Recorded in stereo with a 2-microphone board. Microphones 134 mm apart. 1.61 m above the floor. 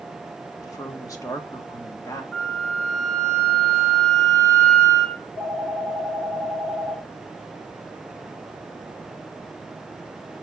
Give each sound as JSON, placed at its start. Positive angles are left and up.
{"t": 0.6, "sound": "a woman speaking", "side_deg": 25, "distance_m": 1.4}
{"t": 2.3, "sound": "a flute", "side_deg": 10, "distance_m": 1.8}
{"t": 5.2, "sound": "a phone ringing", "side_deg": 80, "distance_m": 4.0}